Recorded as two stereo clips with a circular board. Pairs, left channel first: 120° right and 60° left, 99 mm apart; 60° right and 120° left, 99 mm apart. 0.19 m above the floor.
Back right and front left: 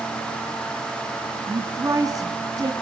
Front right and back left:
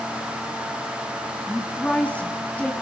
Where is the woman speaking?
15° left, 1.8 m.